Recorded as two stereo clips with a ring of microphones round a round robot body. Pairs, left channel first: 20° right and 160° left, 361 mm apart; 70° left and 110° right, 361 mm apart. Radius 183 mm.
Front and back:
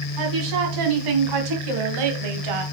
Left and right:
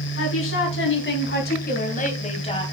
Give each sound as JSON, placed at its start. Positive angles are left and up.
{"t": 0.2, "sound": "a woman speaking", "azimuth_deg": 125, "distance_m": 3.5}